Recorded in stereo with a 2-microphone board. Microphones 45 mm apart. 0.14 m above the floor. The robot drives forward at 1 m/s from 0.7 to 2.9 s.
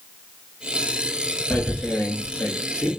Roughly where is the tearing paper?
Left.